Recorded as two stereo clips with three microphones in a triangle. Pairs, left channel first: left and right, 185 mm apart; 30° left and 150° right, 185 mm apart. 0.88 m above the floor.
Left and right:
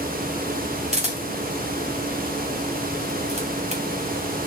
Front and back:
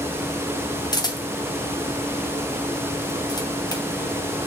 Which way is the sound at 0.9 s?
40° right.